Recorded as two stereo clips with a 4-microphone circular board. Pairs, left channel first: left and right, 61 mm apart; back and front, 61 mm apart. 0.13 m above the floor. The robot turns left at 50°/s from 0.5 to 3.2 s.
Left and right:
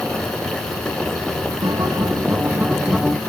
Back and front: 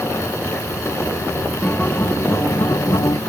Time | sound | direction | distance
1.6 | a guitar | 105° right | ?